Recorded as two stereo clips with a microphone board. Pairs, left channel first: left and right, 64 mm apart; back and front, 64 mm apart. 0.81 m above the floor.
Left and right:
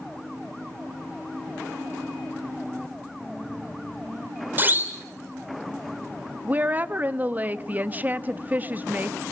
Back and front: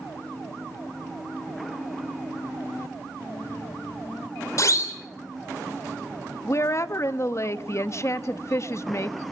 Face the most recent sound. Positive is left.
turn(degrees=-150)